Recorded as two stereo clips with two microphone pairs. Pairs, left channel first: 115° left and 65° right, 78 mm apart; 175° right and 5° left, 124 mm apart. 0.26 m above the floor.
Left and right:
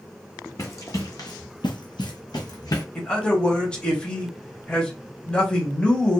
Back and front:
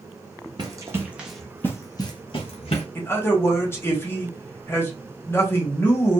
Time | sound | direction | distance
0.6 | running footsteps | 65° left | 0.9 m
3.0 | a man speaking | 170° left | 0.9 m